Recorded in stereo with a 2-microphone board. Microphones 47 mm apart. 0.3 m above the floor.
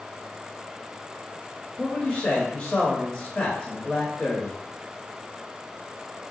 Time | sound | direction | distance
1.8 | a man speaking | 20° left (ahead or behind) | 1.0 m